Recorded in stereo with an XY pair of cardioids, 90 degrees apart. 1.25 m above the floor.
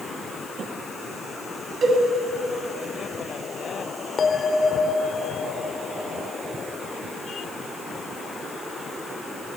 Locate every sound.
1.8 s a cowbell: 60° right, 8 m
4.2 s a bell: 45° left, 2 m